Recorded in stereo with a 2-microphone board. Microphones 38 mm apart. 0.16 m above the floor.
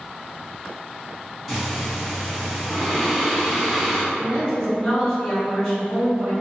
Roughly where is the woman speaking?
Centre.